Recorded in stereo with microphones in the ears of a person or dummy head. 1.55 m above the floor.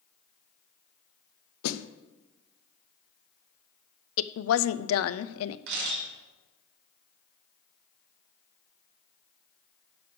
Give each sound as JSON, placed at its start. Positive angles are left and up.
{"t": 1.6, "sound": "a snare drum", "side_deg": 90, "distance_m": 0.6}
{"t": 4.2, "sound": "a woman speaking", "side_deg": 70, "distance_m": 0.5}
{"t": 5.7, "sound": "a camera shutter", "side_deg": -65, "distance_m": 5.5}